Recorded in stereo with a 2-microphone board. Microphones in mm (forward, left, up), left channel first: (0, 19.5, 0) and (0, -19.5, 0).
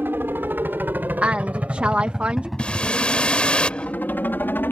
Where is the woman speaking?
35° right (ahead or behind).